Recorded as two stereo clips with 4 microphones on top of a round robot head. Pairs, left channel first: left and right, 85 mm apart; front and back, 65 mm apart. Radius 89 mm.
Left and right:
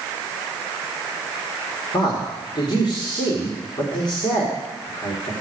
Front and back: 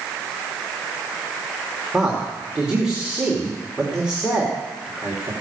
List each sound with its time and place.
1.9 s a man speaking: 105° left, 2 m